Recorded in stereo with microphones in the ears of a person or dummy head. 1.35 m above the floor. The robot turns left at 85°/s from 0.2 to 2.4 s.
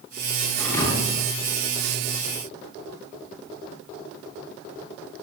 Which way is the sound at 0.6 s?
175° left.